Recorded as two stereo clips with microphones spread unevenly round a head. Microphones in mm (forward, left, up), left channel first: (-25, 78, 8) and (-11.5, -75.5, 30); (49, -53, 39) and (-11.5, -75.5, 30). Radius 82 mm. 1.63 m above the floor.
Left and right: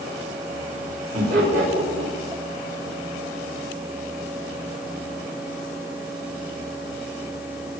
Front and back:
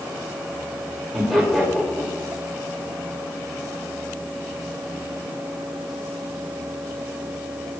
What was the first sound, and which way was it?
Laughter, 70° right.